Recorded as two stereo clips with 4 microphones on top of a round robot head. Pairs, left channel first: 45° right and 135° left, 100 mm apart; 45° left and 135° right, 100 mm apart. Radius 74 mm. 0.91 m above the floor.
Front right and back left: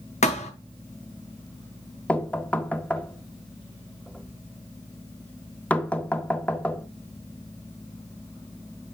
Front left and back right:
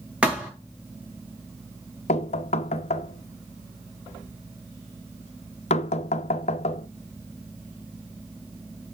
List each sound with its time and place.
0.2 s a thud: 55° right, 2 m
2.1 s knocking: 30° left, 0.7 m